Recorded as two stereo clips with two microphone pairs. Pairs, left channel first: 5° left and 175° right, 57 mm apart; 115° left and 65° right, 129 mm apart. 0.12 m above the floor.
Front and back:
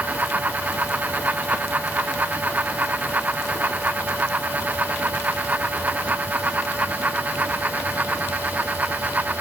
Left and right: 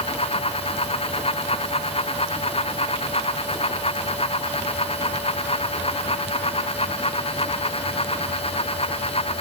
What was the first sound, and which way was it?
Only background noise.